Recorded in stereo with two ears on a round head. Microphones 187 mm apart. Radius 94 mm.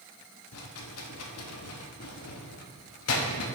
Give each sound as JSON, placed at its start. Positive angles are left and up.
{"t": 0.5, "sound": "a rattle", "side_deg": 85, "distance_m": 0.8}